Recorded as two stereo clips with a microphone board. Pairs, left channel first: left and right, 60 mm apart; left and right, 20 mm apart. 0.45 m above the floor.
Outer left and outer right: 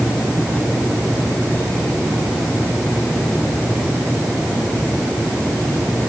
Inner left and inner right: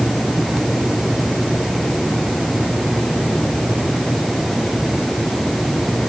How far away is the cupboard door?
No cupboard door in this recording.